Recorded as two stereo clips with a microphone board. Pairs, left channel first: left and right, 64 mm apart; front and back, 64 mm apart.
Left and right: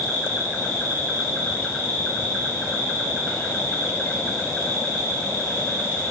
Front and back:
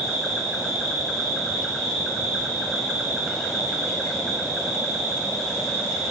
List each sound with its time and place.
0.0 s an insect: 75° left, 1.5 m